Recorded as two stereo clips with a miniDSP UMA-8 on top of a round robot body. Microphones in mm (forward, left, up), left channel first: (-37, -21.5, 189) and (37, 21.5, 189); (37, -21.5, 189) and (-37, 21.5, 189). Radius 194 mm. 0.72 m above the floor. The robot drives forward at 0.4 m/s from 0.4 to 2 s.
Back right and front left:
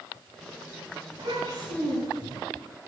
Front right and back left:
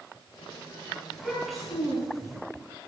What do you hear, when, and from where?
1.1 s a child speaking: 60° left, 5.5 m